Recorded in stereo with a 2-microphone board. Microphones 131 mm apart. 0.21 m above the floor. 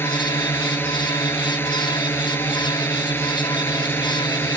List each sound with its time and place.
0.0 s a drone: 15° left (ahead or behind)